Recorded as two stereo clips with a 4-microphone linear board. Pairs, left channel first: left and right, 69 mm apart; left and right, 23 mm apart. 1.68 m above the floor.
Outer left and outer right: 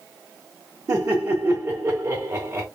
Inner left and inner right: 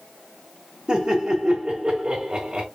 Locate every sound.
0.9 s laughter: 45° right (ahead or behind), 2 m